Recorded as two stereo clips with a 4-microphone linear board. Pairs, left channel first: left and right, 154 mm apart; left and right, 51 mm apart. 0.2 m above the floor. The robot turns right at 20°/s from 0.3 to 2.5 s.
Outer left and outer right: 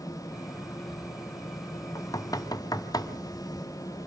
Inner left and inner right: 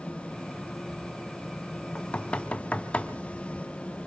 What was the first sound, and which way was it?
Knocking, 20° left (ahead or behind).